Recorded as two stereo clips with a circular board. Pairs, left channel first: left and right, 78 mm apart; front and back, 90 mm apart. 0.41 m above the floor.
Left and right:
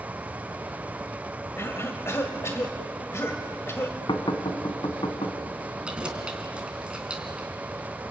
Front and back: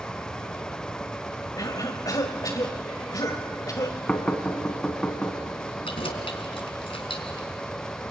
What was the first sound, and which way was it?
A cough, 40° left.